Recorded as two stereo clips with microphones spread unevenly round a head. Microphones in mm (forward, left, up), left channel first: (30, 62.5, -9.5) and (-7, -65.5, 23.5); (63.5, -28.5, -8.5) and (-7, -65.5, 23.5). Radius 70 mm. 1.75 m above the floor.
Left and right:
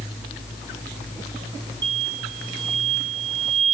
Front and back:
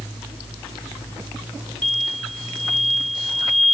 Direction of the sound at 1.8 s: 50° right.